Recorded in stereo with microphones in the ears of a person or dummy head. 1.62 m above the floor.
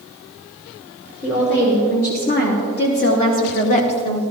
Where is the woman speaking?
70° left (ahead or behind), 4.5 m; by 4.2 s 20° left (ahead or behind), 1.0 m.